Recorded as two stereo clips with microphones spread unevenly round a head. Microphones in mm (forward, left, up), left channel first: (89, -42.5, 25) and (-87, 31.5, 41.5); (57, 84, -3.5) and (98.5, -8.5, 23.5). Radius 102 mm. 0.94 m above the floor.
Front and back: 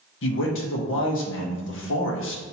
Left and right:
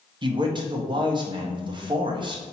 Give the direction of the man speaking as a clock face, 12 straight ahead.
12 o'clock.